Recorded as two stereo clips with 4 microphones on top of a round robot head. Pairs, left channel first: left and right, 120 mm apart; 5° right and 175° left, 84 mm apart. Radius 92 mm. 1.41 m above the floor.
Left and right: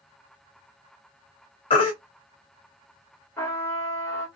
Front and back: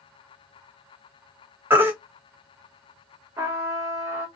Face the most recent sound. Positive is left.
turn(degrees=145)